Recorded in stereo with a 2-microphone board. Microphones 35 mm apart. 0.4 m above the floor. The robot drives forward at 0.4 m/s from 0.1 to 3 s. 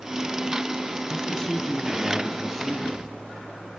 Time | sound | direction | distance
1.1 | a man speaking | 15° left (ahead or behind) | 2.5 m